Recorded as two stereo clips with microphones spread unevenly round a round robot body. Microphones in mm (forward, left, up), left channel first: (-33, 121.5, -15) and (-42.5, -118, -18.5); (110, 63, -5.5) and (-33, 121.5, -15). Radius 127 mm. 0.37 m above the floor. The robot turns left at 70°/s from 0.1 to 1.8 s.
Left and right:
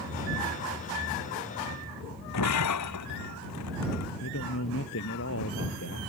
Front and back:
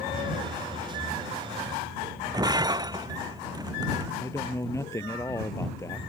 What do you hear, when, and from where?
2.3 s breaking glass: 95° left
4.2 s a man speaking: 50° left